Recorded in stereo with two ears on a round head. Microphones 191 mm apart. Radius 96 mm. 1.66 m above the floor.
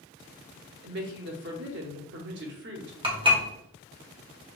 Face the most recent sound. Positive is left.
turn(degrees=-25)  # may be behind; listen again after turning